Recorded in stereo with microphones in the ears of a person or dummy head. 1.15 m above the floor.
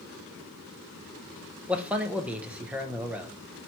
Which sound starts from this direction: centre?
A man speaking, at 1.7 s.